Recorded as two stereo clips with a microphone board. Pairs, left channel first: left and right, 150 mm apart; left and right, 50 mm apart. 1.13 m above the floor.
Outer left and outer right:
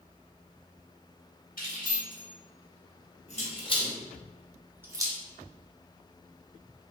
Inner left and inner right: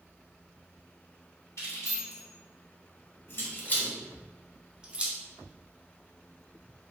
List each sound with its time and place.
1.6 s keys jangling: 70° left (ahead or behind), 1.8 m; by 5.2 s 30° right (ahead or behind), 0.7 m